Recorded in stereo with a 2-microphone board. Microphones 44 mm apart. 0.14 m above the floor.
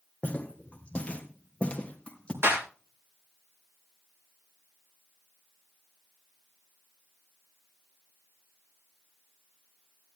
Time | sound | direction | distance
0.2 | footsteps | 30° left (ahead or behind) | 2.5 m
2.4 | a clap | 75° right (ahead or behind) | 8 m